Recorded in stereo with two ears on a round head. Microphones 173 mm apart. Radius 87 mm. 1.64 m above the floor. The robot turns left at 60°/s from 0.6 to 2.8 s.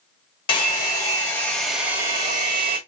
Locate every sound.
0.5 s a hair dryer: 25° left (ahead or behind), 1.2 m; by 2.8 s 25° right (ahead or behind), 1.2 m